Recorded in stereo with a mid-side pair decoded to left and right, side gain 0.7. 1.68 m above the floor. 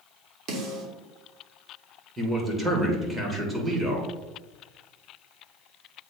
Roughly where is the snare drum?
Ahead right.